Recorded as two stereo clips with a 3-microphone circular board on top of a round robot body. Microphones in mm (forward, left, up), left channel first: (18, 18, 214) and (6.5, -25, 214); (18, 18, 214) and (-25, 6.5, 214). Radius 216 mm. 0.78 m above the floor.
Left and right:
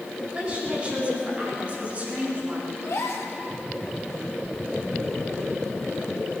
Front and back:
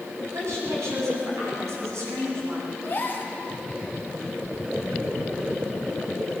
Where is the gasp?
65° left, 2 m.